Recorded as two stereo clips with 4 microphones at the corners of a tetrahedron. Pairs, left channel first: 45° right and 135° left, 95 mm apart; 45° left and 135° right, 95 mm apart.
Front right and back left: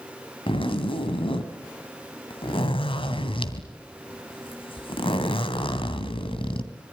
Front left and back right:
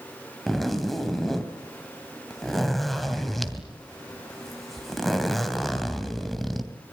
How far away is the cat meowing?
I don't hear a cat meowing.